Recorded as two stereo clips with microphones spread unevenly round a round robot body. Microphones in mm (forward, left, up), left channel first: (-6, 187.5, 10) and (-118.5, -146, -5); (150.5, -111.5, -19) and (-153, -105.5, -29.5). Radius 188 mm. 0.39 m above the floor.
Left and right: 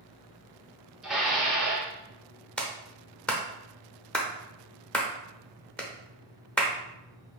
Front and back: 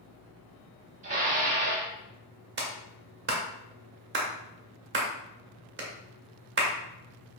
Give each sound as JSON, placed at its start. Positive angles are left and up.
{"t": 1.0, "sound": "dishes clattering", "azimuth_deg": 170, "distance_m": 0.7}
{"t": 2.6, "sound": "a clap", "azimuth_deg": 160, "distance_m": 0.7}